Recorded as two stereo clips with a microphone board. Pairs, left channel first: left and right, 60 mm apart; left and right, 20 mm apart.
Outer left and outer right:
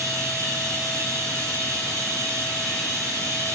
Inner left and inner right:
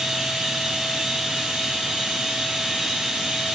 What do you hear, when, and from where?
0.0 s running water: 60° right (ahead or behind), 7 m